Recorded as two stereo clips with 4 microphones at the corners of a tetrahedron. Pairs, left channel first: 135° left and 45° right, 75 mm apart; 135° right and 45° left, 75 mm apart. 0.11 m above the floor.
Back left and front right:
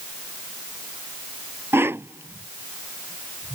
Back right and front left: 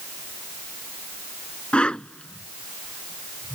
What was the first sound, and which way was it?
A whoosh, 70° right.